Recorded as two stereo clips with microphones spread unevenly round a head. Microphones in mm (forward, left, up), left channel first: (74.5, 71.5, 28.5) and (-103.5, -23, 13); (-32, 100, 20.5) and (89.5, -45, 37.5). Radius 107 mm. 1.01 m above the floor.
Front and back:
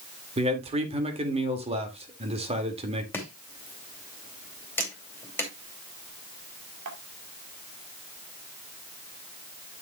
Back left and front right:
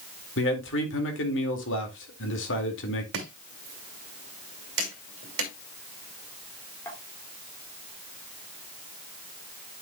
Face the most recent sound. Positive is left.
turn(degrees=-150)